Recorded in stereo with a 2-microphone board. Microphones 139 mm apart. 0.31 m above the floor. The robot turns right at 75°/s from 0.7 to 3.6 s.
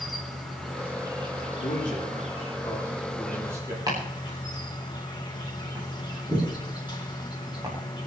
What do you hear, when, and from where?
0.0 s an insect: straight behind, 3.5 m; by 8.1 s 40° left, 3.5 m
1.6 s a man speaking: 55° left (ahead or behind), 9 m; by 3.8 s 25° right (ahead or behind), 9 m
3.9 s chopping: 30° right (ahead or behind), 7.5 m